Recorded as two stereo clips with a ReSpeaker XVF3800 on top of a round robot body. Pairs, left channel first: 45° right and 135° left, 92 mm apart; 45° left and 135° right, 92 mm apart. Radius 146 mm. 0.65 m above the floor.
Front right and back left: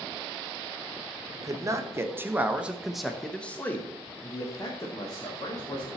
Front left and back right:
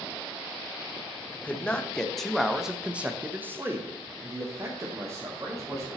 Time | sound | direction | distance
1.3 | a man speaking | 110° left | 1.4 m